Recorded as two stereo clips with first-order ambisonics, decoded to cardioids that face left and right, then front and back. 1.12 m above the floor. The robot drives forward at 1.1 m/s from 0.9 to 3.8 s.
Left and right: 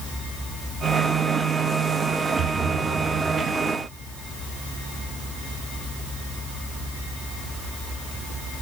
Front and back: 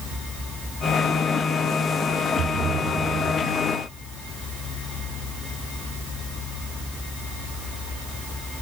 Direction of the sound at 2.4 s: 130° right.